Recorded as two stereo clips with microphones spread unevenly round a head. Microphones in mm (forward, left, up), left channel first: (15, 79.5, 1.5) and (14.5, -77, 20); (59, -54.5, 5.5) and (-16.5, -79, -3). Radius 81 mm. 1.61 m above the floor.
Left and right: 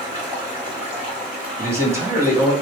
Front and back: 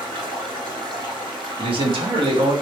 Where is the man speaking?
160° right, 0.9 m.